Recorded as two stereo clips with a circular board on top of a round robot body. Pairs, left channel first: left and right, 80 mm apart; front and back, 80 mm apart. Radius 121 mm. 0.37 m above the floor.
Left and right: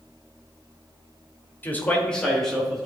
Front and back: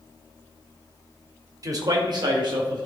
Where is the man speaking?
150° left, 1.5 m; by 2.9 s straight behind, 2.5 m.